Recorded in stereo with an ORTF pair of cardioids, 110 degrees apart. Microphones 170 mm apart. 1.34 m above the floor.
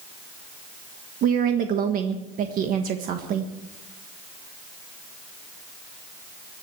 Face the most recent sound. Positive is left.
turn(degrees=-60)